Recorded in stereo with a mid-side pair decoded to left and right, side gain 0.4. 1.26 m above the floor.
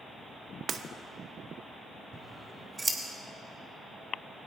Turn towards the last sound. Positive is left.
turn(degrees=-25)